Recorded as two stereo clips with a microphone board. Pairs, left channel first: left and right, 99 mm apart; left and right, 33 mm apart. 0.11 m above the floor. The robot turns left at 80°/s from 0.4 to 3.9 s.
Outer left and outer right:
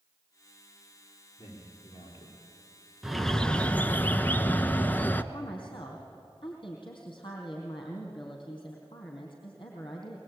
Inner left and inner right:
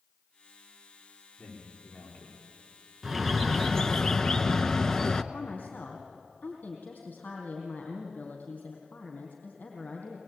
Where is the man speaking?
30° left (ahead or behind), 8.5 m; by 4.0 s 55° right (ahead or behind), 8.5 m.